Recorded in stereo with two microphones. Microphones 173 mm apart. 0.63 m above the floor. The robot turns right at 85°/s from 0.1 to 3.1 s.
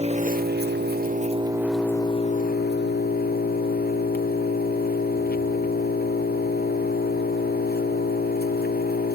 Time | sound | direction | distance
0.0 | an engine running | 140° right | 1.0 m